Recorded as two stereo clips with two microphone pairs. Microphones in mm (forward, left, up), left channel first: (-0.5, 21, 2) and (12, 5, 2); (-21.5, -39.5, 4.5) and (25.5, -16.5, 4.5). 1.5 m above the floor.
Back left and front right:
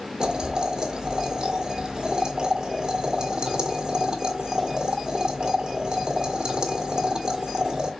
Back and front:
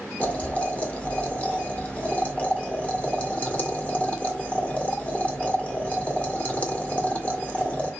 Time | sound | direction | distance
0.2 | boiling | 95° right | 1.7 m